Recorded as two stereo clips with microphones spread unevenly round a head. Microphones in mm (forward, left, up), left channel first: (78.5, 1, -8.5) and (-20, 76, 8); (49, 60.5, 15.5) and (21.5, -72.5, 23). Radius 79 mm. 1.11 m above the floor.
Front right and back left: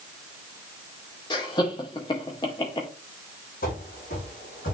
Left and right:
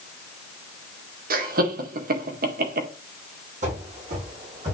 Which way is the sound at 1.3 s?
95° right.